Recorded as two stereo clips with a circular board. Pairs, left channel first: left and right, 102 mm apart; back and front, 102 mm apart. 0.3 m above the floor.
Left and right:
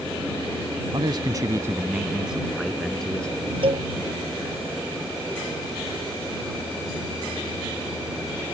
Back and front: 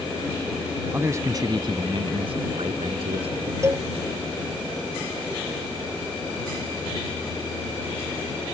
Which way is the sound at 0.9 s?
65° right.